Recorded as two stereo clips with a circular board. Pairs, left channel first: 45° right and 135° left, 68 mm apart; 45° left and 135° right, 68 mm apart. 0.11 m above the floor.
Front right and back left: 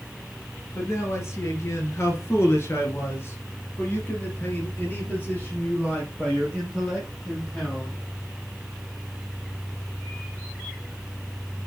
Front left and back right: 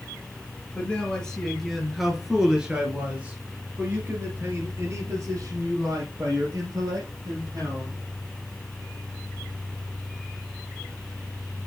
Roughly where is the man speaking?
Ahead right.